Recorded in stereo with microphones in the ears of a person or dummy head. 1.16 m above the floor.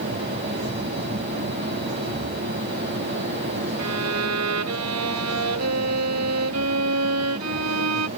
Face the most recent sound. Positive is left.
turn(degrees=-90)